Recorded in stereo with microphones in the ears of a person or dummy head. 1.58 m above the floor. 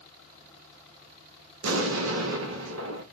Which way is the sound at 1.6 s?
75° right (ahead or behind).